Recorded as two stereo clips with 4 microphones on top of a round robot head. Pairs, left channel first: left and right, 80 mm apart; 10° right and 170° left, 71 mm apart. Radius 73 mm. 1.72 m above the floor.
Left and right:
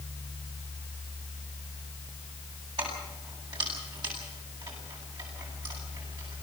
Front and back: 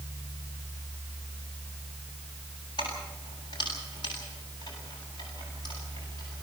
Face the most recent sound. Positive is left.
turn(degrees=-50)